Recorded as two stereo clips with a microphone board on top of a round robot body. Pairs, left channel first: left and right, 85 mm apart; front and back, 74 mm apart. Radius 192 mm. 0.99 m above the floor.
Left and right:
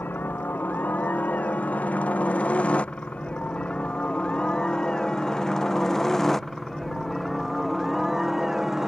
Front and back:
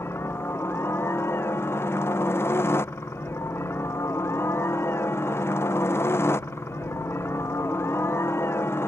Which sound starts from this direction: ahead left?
A helicopter, at 0.0 s.